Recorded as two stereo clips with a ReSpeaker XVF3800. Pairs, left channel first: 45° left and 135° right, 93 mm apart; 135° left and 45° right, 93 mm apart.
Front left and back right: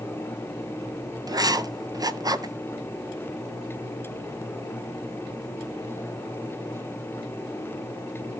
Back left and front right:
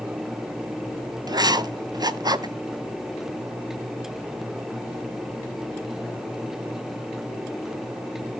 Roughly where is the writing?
Right.